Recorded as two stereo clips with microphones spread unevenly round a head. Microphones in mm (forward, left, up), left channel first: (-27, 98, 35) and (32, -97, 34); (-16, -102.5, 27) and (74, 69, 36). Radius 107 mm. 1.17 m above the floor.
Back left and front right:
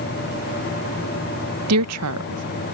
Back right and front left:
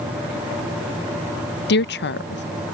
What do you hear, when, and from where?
1.7 s a woman speaking: 85° right